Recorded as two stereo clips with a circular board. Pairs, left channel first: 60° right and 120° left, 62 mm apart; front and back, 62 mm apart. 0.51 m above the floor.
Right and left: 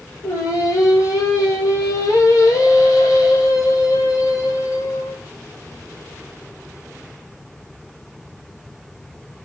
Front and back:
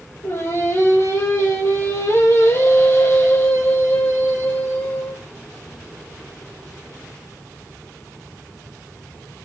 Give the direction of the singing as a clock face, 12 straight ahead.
1 o'clock.